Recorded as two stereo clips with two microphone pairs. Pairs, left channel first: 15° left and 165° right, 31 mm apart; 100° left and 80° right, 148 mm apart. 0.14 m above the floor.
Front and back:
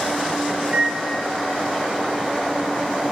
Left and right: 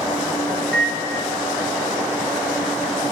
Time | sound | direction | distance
0.6 | a microwave | straight behind | 1.4 m